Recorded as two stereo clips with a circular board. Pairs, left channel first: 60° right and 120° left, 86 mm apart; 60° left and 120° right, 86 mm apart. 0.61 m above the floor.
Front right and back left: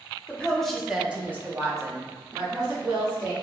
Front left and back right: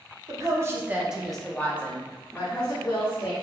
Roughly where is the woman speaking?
Behind right.